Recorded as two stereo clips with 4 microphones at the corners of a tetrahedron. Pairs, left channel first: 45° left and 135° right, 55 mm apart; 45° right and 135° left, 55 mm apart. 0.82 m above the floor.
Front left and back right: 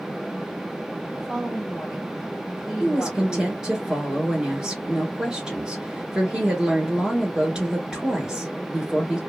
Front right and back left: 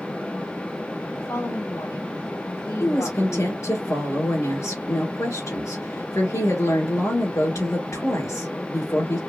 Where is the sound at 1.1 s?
45° right, 2.5 m.